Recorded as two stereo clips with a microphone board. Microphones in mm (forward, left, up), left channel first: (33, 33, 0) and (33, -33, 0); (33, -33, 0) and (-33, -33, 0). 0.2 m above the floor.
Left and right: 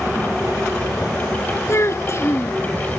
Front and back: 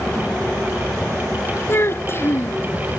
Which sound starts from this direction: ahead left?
A child speaking, at 1.7 s.